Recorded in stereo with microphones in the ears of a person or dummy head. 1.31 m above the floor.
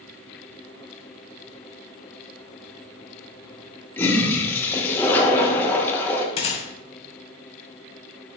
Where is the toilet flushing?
10° left (ahead or behind), 1.0 m.